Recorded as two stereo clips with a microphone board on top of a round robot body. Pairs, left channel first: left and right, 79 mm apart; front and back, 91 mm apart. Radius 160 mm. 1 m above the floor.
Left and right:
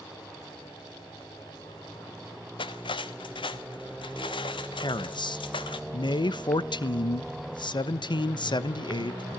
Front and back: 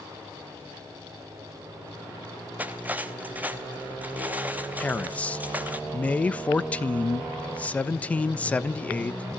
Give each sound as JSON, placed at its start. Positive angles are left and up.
{"t": 2.6, "sound": "cutlery clinking", "azimuth_deg": 105, "distance_m": 1.0}
{"t": 4.8, "sound": "a man speaking", "azimuth_deg": 75, "distance_m": 1.1}